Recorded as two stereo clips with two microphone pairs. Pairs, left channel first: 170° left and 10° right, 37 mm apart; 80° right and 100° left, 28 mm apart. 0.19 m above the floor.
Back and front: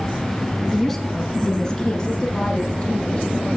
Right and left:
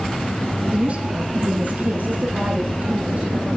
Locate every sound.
0.7 s a woman speaking: 85° left, 1.6 m; by 3.5 s 110° left, 4.5 m